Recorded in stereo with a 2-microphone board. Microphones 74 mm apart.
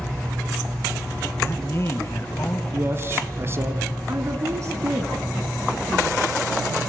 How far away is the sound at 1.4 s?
About 1.6 m.